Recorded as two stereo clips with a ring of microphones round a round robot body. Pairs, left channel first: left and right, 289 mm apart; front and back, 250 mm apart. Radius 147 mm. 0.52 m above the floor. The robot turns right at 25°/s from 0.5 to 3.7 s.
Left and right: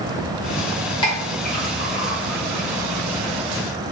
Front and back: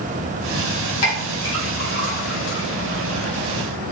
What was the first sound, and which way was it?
A clink, 20° left.